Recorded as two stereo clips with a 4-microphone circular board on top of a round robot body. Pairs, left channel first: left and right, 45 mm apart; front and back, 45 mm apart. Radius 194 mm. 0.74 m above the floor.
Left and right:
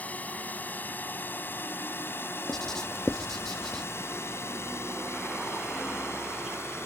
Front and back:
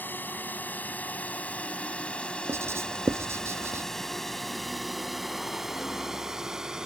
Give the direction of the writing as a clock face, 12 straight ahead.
6 o'clock.